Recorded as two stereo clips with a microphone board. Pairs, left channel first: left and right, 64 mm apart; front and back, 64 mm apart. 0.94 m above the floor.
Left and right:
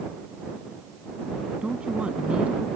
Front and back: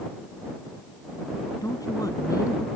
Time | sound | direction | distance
1.6 | a woman speaking | 20° right | ?